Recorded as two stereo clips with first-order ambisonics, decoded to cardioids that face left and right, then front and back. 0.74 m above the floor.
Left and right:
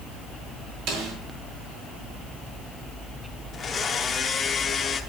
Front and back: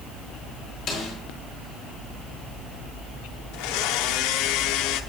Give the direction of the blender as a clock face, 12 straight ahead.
11 o'clock.